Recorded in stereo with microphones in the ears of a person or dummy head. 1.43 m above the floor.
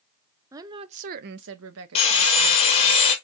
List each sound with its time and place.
0.5 s a woman speaking: 10° right (ahead or behind), 0.7 m; by 3.0 s 75° right (ahead or behind), 1.4 m
1.9 s sawing: 35° left (ahead or behind), 1.9 m